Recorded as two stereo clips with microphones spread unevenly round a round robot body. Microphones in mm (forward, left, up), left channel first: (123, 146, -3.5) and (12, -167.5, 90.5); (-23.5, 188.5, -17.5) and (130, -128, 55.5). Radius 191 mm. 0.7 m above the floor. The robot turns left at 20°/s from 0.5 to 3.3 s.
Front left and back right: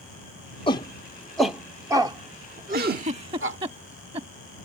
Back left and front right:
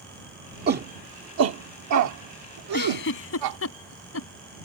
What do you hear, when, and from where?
0.7 s a shout: 5° left; by 3.6 s 50° right
2.7 s a giggle: 175° right; by 4.3 s 175° left